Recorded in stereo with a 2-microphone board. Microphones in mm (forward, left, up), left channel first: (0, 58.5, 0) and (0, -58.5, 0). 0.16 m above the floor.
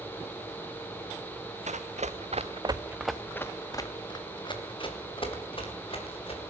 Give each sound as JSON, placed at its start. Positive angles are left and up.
{"t": 1.7, "sound": "running footsteps", "side_deg": -85, "distance_m": 1.7}